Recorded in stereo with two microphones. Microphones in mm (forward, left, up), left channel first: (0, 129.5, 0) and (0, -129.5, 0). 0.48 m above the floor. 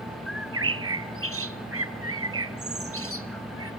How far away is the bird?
About 1.0 m.